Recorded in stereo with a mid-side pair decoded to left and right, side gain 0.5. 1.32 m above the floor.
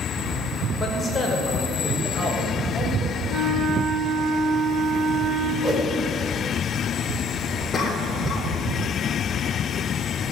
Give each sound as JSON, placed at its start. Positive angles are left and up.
{"t": 0.8, "sound": "a man speaking", "azimuth_deg": 25, "distance_m": 5.0}
{"t": 3.3, "sound": "a flute", "azimuth_deg": -30, "distance_m": 3.0}
{"t": 5.6, "sound": "a whoosh", "azimuth_deg": -15, "distance_m": 4.5}
{"t": 7.7, "sound": "a cough", "azimuth_deg": 35, "distance_m": 3.5}